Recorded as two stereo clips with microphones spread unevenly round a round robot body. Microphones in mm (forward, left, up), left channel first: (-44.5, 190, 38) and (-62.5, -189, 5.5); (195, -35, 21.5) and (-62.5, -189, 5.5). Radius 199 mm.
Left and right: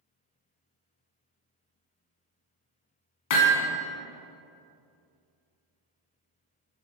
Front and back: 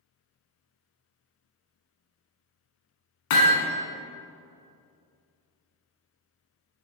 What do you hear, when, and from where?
3.3 s hammering: 60° left, 1.8 m